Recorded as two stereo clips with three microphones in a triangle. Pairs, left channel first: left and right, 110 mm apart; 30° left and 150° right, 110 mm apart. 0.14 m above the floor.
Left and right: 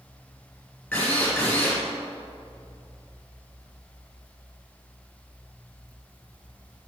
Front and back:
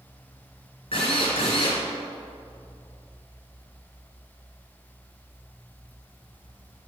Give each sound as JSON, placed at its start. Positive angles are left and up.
{"t": 0.9, "sound": "a drill", "azimuth_deg": 15, "distance_m": 3.0}